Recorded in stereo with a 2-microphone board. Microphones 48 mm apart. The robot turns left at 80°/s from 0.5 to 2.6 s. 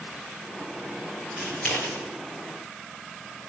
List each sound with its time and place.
1.4 s scissors: centre (ahead or behind), 6 m; by 2.0 s 55° left (ahead or behind), 6 m